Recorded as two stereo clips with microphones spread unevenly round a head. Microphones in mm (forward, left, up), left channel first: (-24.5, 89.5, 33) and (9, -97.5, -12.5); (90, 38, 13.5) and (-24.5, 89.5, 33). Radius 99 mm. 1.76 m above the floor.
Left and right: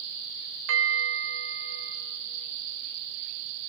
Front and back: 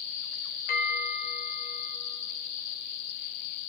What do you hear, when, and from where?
0.7 s a bell: 55° right, 3 m